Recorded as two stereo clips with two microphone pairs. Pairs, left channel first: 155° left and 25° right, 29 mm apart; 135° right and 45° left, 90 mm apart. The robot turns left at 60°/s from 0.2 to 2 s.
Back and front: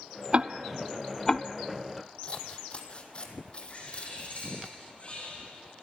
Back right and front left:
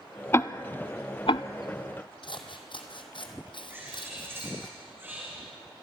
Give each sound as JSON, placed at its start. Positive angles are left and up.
{"t": 0.3, "sound": "ticking", "azimuth_deg": -75, "distance_m": 0.5}
{"t": 2.2, "sound": "scissors", "azimuth_deg": -155, "distance_m": 2.0}
{"t": 3.7, "sound": "a bird", "azimuth_deg": 105, "distance_m": 6.0}